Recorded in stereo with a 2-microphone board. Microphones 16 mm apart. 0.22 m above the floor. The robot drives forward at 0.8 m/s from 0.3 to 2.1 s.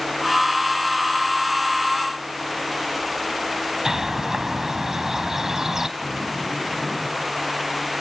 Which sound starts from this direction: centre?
A zipper, at 6.0 s.